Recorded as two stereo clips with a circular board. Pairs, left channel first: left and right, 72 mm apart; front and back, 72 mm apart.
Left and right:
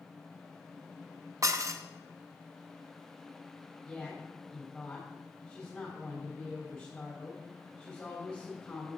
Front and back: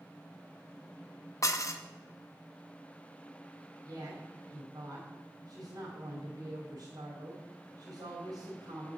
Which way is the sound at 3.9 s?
165° left.